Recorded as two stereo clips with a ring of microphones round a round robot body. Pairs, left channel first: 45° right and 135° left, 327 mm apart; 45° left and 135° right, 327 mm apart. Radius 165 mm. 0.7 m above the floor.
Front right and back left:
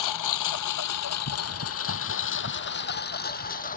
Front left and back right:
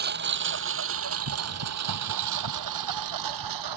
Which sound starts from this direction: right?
A lawn mower, at 0.0 s.